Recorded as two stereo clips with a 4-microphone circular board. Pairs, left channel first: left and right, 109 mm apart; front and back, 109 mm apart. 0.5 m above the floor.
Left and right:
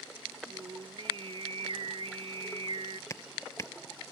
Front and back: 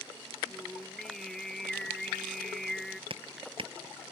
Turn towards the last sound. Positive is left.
turn(degrees=150)